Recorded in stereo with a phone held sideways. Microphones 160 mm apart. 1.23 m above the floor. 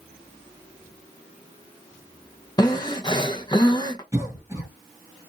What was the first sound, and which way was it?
Breathing, 25° left (ahead or behind).